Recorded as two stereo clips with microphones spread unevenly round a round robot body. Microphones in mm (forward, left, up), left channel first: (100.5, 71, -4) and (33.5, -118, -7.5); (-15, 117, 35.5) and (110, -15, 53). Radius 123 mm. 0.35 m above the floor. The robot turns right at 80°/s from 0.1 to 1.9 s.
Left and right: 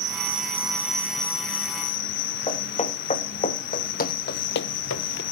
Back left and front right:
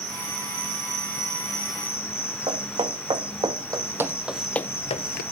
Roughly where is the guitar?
No guitar in this recording.